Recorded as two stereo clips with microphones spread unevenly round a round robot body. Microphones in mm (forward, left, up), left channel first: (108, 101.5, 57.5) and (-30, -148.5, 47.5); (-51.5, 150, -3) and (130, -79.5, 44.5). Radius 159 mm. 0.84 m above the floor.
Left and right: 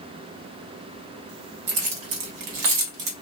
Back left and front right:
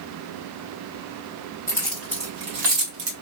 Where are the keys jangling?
150° right, 1.7 m; by 3.1 s 100° right, 1.5 m.